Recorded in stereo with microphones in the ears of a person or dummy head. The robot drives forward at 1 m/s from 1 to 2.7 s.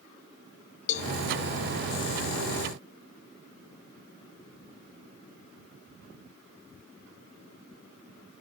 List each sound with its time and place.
0.9 s a cowbell: 45° left (ahead or behind), 0.8 m; by 1.1 s 50° left (ahead or behind), 0.7 m